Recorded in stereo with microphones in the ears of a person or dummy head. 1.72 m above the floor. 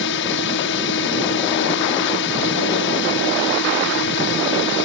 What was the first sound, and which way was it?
A drone, 65° left (ahead or behind).